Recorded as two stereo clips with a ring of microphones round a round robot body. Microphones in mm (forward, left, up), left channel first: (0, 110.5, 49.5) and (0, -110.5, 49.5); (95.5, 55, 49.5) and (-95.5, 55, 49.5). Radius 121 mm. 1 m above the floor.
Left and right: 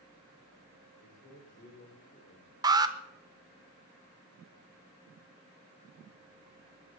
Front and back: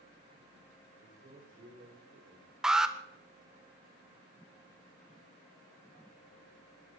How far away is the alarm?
About 1.4 m.